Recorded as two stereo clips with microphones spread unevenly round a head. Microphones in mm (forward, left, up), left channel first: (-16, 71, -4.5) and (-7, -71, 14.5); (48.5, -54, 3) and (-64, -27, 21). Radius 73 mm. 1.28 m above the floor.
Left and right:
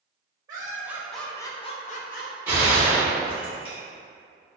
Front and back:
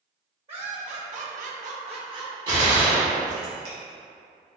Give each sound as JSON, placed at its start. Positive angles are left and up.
{"t": 0.5, "sound": "laughter", "azimuth_deg": -155, "distance_m": 0.8}
{"t": 2.5, "sound": "a gunshot", "azimuth_deg": -160, "distance_m": 1.4}